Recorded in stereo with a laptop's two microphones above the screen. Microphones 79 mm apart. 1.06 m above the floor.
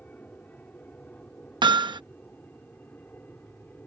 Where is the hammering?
85° right.